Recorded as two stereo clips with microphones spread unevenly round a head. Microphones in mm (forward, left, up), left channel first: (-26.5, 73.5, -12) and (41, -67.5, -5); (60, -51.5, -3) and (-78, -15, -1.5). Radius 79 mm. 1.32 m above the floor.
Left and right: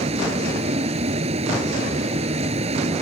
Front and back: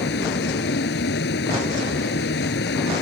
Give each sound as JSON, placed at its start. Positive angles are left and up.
{"t": 0.0, "sound": "a vehicle", "azimuth_deg": -15}